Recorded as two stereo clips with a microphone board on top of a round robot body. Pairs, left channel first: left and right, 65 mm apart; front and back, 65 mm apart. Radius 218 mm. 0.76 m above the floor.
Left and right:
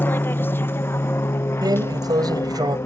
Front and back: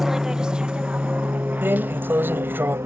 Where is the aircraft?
100° left; by 2.9 s 135° left.